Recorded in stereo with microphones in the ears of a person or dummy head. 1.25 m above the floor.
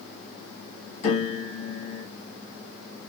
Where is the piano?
45° left (ahead or behind), 2 m.